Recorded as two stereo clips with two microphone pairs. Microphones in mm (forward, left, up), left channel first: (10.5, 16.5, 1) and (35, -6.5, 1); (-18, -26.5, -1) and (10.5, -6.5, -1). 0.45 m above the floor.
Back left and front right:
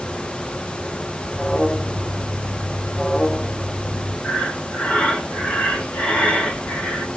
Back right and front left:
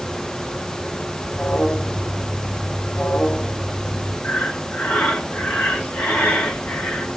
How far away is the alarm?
About 3.5 m.